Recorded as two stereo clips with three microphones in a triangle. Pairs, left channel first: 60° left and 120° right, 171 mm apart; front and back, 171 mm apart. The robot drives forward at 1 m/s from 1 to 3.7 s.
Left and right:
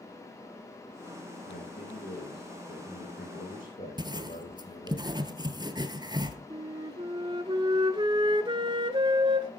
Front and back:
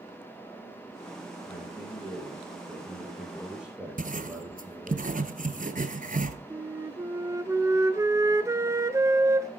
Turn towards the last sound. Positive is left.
turn(degrees=-130)